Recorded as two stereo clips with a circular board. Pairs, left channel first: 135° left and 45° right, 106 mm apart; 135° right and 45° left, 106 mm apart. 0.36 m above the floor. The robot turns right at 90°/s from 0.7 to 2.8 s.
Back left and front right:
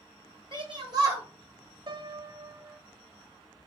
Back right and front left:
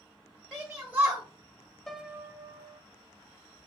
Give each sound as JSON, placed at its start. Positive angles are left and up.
{"t": 0.5, "sound": "a shout", "azimuth_deg": -40, "distance_m": 1.9}
{"t": 1.9, "sound": "a piano", "azimuth_deg": -50, "distance_m": 0.6}